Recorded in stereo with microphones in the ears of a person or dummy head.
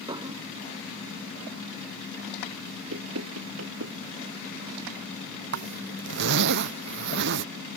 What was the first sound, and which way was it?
Dishes clattering, 30° right (ahead or behind).